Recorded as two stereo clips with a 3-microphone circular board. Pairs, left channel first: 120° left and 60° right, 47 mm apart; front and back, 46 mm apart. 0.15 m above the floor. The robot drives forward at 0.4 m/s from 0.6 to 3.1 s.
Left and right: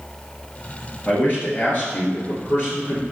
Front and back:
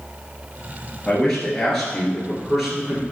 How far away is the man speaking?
About 2.5 m.